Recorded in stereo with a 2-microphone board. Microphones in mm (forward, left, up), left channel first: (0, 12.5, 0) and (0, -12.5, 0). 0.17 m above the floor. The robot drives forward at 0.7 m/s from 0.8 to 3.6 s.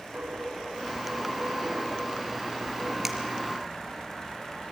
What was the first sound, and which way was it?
A dropped coin, 85° right.